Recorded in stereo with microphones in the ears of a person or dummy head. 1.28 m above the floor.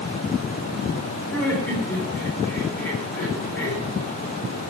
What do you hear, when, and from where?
1.3 s laughter: 5° left (ahead or behind), 4.5 m